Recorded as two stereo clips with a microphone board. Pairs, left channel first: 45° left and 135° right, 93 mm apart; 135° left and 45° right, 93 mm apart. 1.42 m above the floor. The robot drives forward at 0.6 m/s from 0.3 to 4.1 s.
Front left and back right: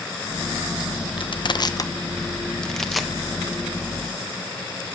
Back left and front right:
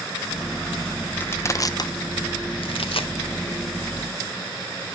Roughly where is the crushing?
Ahead left.